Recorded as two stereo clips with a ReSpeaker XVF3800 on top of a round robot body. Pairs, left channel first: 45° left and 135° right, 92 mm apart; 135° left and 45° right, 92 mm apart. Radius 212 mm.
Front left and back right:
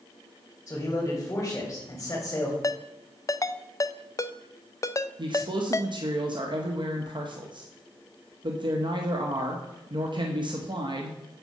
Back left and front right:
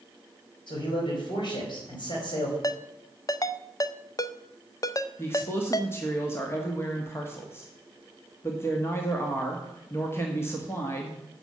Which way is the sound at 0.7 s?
110° left.